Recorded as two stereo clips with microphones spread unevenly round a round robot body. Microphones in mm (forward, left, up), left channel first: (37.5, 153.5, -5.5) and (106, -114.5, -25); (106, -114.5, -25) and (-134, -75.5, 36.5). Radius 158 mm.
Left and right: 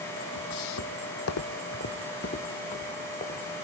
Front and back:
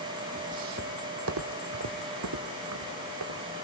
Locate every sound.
0.3 s footsteps: 110° left, 1.0 m; by 3.6 s 175° left, 2.5 m